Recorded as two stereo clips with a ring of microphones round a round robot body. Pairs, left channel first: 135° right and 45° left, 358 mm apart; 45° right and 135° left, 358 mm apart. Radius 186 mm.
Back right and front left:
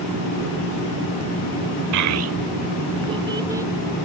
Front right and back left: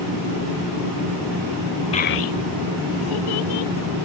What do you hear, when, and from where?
1.9 s a child speaking: 25° left; by 3.7 s 40° right